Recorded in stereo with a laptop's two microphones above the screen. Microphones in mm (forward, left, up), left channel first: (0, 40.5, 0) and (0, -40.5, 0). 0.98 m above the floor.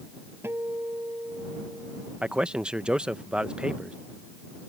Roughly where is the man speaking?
Centre.